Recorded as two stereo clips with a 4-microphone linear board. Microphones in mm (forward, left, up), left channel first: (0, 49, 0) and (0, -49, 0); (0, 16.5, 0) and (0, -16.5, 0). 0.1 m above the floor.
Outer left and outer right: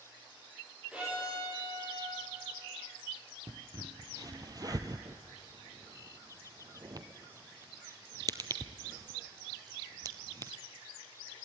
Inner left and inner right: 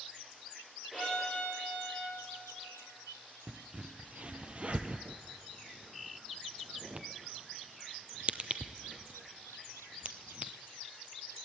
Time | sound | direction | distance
0.9 | a violin | 10° right (ahead or behind) | 8.5 m
3.5 | a crack | 40° right (ahead or behind) | 0.9 m